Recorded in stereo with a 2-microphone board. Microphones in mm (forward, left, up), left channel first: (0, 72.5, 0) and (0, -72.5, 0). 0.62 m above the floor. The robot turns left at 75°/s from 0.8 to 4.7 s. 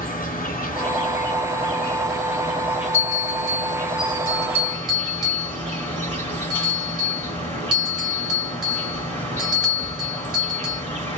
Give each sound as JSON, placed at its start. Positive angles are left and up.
{"t": 0.0, "sound": "an insect", "azimuth_deg": 95, "distance_m": 1.9}
{"t": 2.9, "sound": "a bell", "side_deg": -40, "distance_m": 2.5}